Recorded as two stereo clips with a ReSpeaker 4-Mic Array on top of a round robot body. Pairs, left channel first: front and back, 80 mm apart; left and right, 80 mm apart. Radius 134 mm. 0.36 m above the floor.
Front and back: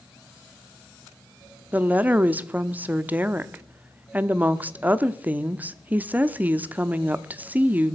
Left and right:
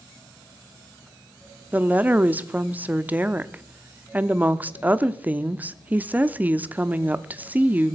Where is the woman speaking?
135° right, 0.9 m.